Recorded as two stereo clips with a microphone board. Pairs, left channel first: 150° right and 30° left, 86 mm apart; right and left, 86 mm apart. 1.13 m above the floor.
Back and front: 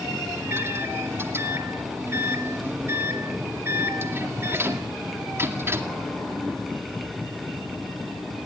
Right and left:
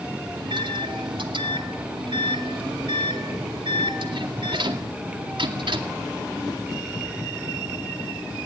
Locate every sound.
0.3 s a microwave: 90° left, 2 m